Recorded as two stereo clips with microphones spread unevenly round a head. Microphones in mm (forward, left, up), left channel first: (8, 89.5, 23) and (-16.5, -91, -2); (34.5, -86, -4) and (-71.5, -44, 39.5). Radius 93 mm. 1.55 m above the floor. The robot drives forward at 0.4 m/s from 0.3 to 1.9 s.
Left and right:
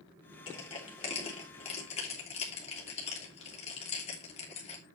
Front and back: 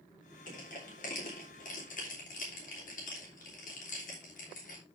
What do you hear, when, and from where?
0.5 s crushing: 20° left, 3.5 m; by 4.8 s 25° left, 3 m